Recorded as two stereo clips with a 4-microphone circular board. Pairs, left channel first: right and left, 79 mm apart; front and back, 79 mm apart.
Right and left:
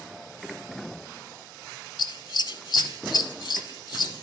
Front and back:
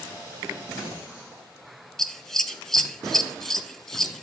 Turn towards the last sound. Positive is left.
turn(degrees=-85)